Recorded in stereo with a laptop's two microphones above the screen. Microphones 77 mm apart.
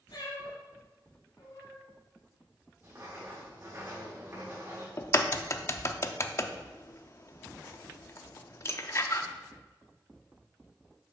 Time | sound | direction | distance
0.1 | a cat meowing | 70° left (ahead or behind) | 2.5 m
2.8 | writing | 35° right (ahead or behind) | 2.5 m
5.0 | a crack | 35° left (ahead or behind) | 0.6 m